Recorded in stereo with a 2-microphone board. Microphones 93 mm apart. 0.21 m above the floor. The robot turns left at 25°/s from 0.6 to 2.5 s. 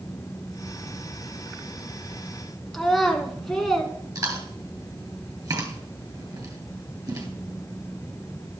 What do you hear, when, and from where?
2.7 s a child speaking: 5° left (ahead or behind), 2.0 m
4.2 s chewing: 45° right (ahead or behind), 2 m